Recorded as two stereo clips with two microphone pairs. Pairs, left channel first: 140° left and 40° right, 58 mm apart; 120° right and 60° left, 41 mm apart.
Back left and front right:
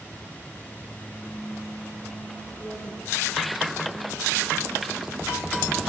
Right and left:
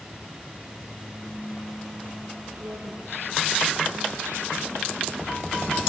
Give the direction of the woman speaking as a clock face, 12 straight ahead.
9 o'clock.